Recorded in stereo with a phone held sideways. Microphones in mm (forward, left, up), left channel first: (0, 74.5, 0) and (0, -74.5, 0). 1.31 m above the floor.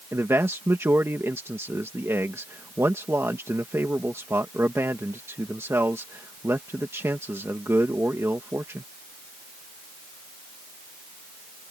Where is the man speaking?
15° right (ahead or behind).